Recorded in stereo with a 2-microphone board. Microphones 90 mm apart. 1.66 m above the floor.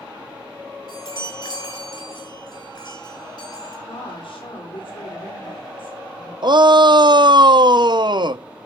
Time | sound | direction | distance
0.9 | a chime | 45° left (ahead or behind) | 8 m
3.9 | a woman speaking | 70° left (ahead or behind) | 3.5 m
6.4 | a shout | 55° right (ahead or behind) | 0.6 m